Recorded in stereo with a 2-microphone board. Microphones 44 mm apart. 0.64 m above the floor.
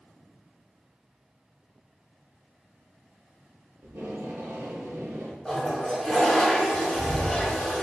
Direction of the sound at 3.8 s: 80° right.